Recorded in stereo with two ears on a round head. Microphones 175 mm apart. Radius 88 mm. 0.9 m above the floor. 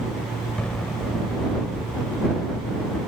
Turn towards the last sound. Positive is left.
turn(degrees=5)  # may be behind; listen again after turning